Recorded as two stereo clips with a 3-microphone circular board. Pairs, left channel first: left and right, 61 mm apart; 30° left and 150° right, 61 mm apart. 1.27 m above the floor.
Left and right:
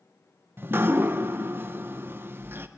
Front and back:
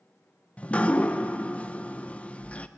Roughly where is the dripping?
Ahead right.